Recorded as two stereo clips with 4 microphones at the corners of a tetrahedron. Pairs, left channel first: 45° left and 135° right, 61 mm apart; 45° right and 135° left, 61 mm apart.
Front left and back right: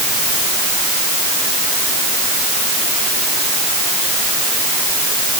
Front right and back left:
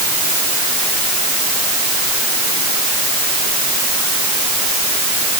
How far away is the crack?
I don't hear a crack.